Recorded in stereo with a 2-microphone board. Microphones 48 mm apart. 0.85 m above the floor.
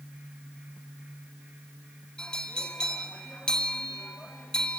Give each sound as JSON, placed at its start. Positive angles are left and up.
{"t": 2.2, "sound": "a bell", "side_deg": 15, "distance_m": 1.8}